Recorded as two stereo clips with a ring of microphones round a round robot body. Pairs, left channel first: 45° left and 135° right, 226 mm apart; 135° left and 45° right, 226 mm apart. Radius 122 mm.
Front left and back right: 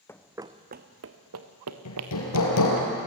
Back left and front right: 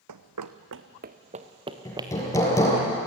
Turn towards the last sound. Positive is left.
turn(degrees=55)